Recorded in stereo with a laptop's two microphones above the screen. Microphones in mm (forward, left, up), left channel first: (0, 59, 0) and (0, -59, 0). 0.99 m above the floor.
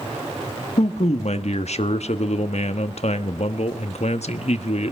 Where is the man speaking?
65° left (ahead or behind), 1.2 m.